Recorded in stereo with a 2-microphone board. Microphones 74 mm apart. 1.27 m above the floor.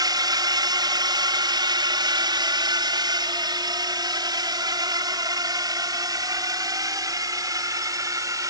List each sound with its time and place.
0.0 s a drone: 55° right (ahead or behind); by 8.5 s 45° right (ahead or behind)